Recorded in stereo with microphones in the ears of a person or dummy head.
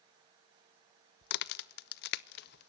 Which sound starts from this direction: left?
A crack, at 1.2 s.